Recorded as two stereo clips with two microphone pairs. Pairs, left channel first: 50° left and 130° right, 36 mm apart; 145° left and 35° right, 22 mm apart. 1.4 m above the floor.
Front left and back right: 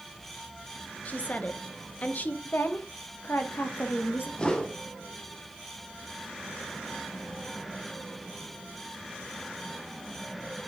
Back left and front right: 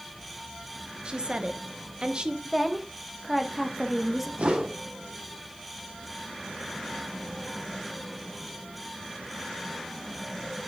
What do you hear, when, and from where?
1.1 s a woman speaking: 10° left, 1.1 m
2.5 s a woman speaking: 50° left, 1.2 m
4.4 s a whoosh: 15° right, 1.3 m